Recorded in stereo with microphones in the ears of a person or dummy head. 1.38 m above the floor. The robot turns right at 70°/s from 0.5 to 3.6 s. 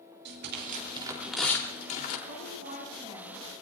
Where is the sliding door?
I don't hear a sliding door.